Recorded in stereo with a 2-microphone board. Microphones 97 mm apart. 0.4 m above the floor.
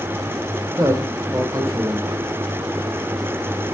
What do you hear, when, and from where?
0.8 s a man speaking: 35° right (ahead or behind), 1.3 m